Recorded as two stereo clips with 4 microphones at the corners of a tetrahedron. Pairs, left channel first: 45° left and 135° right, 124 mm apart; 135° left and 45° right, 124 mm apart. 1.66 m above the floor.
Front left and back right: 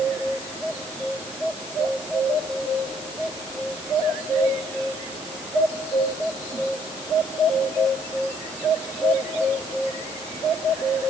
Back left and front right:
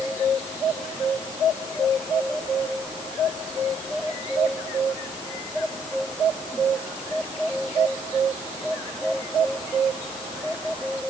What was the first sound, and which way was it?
Only background noise.